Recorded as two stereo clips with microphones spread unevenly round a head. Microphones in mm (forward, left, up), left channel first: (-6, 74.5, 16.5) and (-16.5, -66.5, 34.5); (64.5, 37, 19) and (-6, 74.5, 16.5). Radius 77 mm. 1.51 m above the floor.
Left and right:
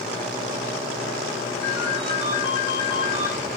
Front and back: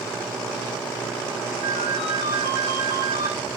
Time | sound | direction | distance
1.6 | a ringtone | 145° left | 8 m